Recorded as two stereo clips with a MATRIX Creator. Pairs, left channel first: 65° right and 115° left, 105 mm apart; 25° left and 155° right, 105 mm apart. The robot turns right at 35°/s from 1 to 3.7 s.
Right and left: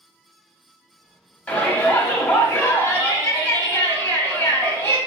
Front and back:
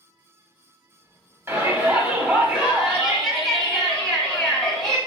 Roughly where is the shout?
Behind right.